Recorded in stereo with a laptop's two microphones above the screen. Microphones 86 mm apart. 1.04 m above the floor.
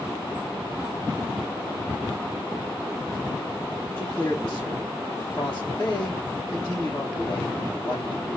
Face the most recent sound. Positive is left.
turn(degrees=30)  # may be behind; listen again after turning